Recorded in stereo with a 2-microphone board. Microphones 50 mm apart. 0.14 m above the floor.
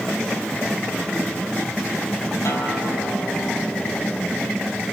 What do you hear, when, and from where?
2.5 s a guitar: 65° left (ahead or behind), 4.5 m